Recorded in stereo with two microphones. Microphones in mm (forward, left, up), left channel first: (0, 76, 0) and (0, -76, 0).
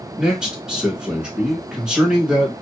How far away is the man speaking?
About 1.2 m.